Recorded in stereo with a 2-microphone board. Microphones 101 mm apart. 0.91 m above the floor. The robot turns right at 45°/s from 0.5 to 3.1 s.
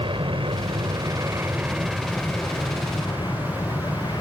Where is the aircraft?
70° right; by 4.2 s 50° left.